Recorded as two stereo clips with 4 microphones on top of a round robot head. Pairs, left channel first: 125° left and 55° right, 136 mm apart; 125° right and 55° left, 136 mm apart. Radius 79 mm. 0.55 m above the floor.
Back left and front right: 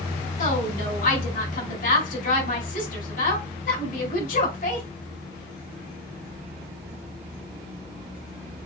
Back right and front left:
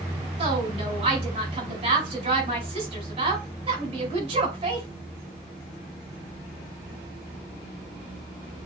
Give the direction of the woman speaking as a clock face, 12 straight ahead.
9 o'clock.